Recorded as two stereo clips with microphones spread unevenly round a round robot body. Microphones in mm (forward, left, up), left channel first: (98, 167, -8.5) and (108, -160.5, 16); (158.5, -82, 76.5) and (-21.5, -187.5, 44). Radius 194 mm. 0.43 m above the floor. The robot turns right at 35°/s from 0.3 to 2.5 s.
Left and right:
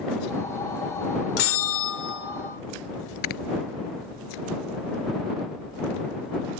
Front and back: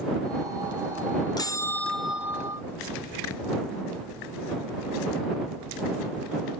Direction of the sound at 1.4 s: 105° left.